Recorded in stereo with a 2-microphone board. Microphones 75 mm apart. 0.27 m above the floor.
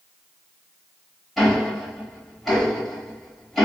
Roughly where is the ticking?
Centre.